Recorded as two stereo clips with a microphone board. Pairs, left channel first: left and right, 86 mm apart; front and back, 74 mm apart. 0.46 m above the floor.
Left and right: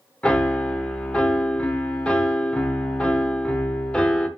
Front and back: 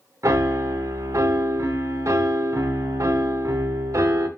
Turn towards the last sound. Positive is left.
turn(degrees=165)